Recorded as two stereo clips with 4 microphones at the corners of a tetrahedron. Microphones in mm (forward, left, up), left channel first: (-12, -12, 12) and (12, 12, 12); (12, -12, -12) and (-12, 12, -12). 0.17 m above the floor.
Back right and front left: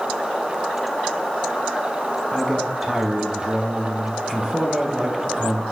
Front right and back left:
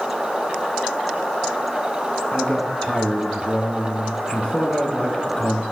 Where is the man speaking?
15° right, 1.2 m.